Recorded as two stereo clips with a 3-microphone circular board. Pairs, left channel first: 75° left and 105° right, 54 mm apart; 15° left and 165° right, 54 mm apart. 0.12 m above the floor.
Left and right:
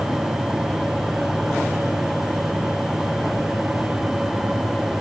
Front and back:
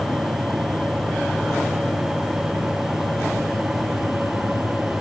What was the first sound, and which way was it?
Only background noise.